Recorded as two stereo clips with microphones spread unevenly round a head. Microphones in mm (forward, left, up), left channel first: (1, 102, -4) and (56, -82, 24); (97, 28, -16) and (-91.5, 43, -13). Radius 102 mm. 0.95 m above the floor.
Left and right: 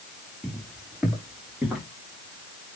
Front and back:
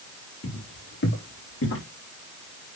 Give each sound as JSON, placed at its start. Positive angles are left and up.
{"t": 0.4, "sound": "footsteps", "azimuth_deg": 15, "distance_m": 5.5}